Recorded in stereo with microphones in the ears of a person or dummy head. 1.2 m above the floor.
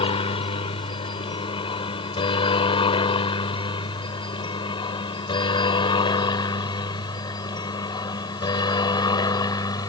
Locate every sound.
0.0 s a helicopter: 25° left (ahead or behind); by 9.9 s 15° left (ahead or behind)